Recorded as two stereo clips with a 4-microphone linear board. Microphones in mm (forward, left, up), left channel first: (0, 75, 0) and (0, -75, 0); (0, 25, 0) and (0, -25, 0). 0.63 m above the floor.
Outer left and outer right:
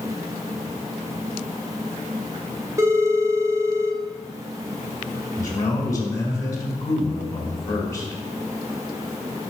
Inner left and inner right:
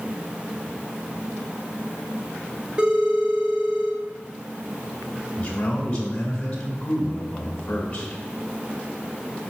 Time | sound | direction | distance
2.8 | a phone ringing | 20° right (ahead or behind) | 2.0 m
5.4 | a man speaking | 25° left (ahead or behind) | 2.5 m